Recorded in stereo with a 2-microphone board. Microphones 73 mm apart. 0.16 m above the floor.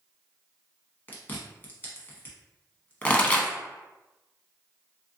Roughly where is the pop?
Centre.